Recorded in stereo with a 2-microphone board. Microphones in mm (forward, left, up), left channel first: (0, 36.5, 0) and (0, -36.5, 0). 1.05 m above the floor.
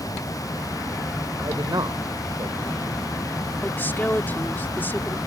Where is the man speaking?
70° right (ahead or behind).